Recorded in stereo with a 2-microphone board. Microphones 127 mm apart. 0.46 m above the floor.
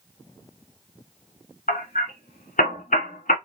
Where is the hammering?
85° left, 1.2 m.